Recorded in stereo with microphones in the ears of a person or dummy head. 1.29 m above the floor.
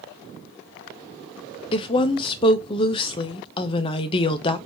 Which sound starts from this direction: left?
A woman speaking, at 1.7 s.